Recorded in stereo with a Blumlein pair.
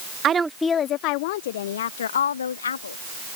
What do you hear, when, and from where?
0.2 s a woman speaking: 30° right; by 3.0 s 70° left